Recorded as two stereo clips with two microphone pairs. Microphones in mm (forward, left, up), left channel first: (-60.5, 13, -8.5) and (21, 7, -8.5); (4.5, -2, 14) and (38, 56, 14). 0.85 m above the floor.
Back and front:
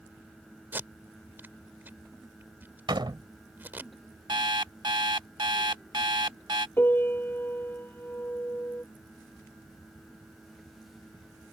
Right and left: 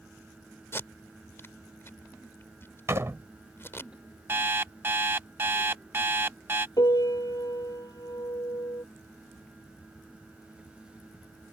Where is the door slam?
15° left.